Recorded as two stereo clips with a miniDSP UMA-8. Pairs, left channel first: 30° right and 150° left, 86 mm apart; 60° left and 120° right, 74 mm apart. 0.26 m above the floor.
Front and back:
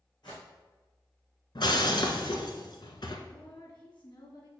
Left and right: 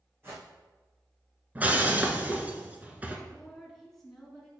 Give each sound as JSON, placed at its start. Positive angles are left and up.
{"t": 0.2, "sound": "a whoosh", "azimuth_deg": -65, "distance_m": 3.0}
{"t": 1.6, "sound": "breaking glass", "azimuth_deg": -55, "distance_m": 1.1}
{"t": 3.3, "sound": "a woman speaking", "azimuth_deg": -30, "distance_m": 2.5}